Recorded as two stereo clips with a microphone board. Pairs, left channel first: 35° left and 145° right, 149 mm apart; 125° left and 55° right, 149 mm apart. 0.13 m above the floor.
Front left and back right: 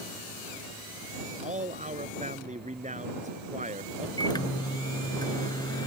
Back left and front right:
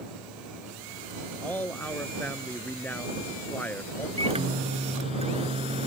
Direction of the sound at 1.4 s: 160° right.